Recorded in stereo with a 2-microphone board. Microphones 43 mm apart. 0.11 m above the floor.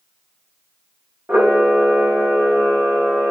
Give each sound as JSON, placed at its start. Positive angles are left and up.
{"t": 1.3, "sound": "a camera shutter", "side_deg": -45, "distance_m": 3.5}